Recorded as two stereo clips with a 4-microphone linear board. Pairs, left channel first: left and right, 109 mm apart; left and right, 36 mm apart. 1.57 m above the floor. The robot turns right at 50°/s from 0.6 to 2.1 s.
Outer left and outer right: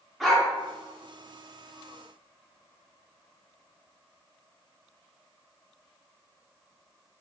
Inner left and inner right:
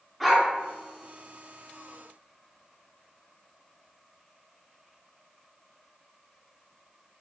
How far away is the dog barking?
About 1.6 m.